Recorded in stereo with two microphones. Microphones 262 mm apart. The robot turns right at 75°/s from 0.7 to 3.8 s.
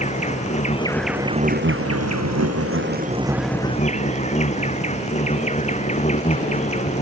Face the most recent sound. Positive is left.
turn(degrees=25)